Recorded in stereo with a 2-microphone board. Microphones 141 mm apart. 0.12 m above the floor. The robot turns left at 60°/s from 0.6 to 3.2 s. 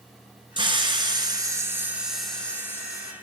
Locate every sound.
0.6 s a hiss: 85° right, 1.3 m; by 3.1 s 125° left, 1.3 m